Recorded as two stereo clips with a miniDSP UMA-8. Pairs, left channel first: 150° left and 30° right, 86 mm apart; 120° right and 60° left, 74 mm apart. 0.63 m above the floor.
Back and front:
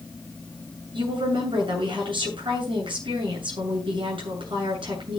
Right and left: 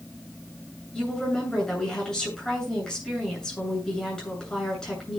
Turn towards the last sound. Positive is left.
turn(degrees=-40)